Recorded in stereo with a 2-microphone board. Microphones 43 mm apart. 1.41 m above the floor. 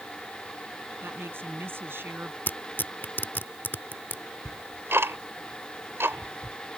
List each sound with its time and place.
1.0 s a woman speaking: 60° right (ahead or behind)
2.5 s tearing paper: 50° left (ahead or behind)
4.5 s ticking: 70° right (ahead or behind)